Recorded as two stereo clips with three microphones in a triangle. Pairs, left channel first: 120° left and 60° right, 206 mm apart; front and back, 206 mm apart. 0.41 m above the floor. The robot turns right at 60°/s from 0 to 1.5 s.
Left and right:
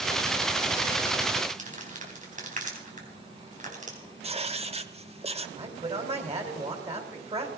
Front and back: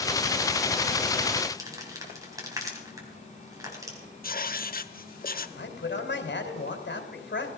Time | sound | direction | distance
1.6 | crumpling | 110° right | 3.5 m
4.2 | writing | 15° right | 0.8 m
5.6 | a man speaking | 5° right | 2.5 m